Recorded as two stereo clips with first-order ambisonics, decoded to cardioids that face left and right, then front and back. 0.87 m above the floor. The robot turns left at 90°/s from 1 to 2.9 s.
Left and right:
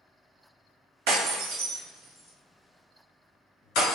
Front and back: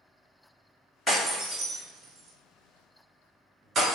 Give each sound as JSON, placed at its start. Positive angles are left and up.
{"t": 1.1, "sound": "breaking glass", "azimuth_deg": -80, "distance_m": 2.0}